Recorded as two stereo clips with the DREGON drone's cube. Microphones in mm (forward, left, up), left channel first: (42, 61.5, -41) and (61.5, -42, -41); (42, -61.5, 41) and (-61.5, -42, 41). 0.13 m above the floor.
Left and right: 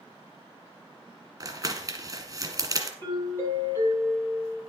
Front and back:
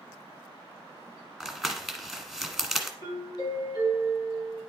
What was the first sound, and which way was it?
Crumpling, 100° right.